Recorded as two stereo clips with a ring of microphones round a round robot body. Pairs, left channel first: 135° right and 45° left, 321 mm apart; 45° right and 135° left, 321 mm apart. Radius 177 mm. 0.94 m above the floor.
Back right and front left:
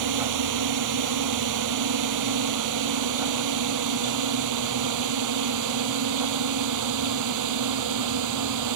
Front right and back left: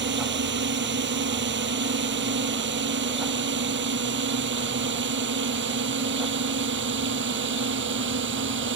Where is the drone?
75° left; by 8.8 s 80° left.